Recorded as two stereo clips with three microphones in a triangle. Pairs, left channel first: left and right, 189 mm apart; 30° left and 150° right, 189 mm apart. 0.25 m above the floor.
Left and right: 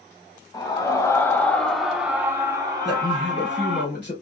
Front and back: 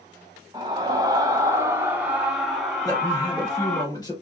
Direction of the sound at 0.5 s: 150° left.